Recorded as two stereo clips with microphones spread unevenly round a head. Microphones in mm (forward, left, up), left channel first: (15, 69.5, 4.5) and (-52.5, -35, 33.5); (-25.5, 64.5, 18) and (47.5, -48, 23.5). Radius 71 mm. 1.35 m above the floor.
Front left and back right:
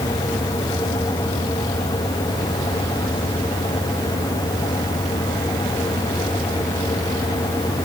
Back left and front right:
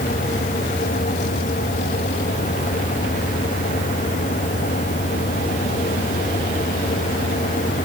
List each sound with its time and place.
Only background noise.